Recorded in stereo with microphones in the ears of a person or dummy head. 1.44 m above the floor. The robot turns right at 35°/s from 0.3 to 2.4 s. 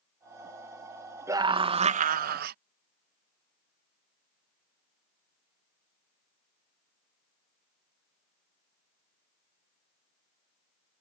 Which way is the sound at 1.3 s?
160° right.